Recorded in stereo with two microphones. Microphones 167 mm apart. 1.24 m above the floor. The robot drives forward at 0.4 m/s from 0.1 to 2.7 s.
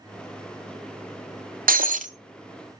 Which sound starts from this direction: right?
Breaking glass, at 1.7 s.